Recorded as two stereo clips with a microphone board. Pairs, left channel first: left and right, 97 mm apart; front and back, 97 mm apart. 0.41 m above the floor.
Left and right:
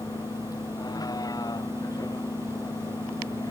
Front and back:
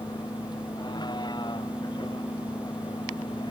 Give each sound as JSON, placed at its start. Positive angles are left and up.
{"t": 0.0, "sound": "a vehicle", "azimuth_deg": 40}